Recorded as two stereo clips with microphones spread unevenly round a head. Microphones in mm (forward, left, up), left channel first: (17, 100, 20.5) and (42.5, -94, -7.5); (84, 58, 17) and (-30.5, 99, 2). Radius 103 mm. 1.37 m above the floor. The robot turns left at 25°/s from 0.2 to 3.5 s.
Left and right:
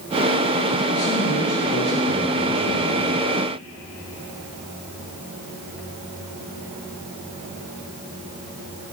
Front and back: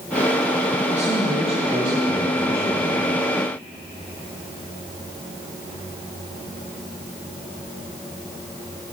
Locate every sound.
0.9 s a man speaking: 135° left, 1.6 m; by 3.3 s 75° left, 1.6 m